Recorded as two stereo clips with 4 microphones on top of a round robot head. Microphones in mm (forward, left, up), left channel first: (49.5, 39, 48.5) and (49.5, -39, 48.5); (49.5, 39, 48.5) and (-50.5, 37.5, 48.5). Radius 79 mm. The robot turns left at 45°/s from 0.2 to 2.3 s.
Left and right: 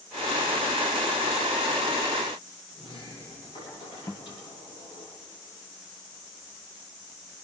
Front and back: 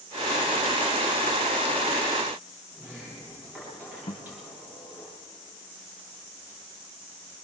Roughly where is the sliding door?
Left.